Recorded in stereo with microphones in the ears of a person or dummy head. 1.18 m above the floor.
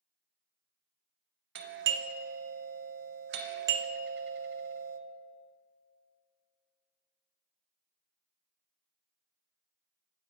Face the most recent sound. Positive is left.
turn(degrees=-50)  # may be behind; listen again after turning